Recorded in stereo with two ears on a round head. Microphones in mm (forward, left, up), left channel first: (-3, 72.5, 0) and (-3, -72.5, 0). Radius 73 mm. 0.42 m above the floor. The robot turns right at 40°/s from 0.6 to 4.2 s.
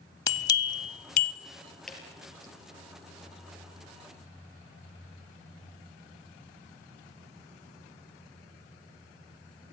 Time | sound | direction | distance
0.3 | a bell | 25° left (ahead or behind) | 0.7 m
1.9 | dripping | 5° left (ahead or behind) | 4.5 m